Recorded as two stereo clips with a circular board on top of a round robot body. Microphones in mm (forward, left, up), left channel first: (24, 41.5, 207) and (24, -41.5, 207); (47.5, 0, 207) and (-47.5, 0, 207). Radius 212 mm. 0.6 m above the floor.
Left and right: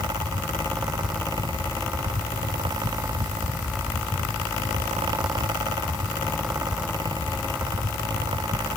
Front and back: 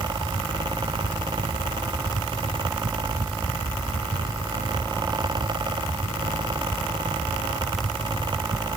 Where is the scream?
I don't hear a scream.